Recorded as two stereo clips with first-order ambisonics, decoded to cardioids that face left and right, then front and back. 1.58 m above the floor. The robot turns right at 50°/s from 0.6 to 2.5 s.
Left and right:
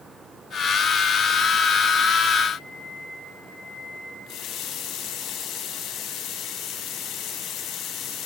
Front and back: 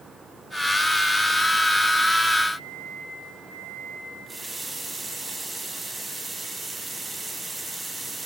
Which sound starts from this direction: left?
A running tap, at 4.3 s.